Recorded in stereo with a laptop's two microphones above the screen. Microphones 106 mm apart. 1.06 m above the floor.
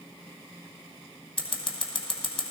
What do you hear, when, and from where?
1.4 s scissors: 55° left (ahead or behind), 1.4 m